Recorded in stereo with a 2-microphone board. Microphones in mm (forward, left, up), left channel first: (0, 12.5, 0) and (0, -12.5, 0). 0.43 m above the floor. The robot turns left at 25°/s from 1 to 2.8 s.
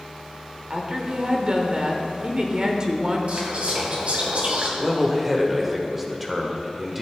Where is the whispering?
65° right (ahead or behind), 2.5 m.